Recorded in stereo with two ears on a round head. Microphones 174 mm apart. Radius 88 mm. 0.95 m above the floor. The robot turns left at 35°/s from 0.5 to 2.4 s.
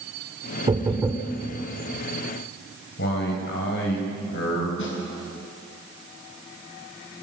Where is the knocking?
25° right (ahead or behind), 2 m; by 1.3 s centre (ahead or behind), 2 m.